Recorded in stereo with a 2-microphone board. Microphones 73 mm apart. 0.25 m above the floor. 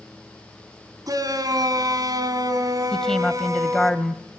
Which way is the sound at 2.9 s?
5° left (ahead or behind).